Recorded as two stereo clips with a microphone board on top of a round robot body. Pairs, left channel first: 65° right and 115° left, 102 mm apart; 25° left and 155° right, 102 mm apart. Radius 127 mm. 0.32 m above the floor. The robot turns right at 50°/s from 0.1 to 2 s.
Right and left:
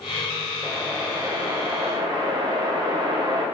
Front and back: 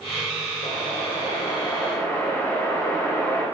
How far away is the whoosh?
About 1.7 m.